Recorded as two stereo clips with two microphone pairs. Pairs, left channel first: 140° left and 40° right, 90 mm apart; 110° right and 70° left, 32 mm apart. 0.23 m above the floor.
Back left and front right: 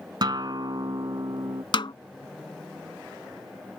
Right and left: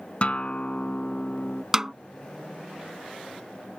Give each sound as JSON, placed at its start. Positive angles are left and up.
{"t": 0.2, "sound": "a guitar", "azimuth_deg": -65}
{"t": 1.7, "sound": "a snare drum", "azimuth_deg": 145}